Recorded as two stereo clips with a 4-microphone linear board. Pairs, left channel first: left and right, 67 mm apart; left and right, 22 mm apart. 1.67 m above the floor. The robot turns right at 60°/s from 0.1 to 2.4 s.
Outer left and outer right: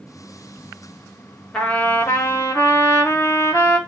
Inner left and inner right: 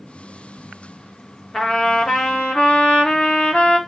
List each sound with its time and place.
1.5 s a trumpet: 10° left, 1.9 m; by 3.8 s 65° left, 1.9 m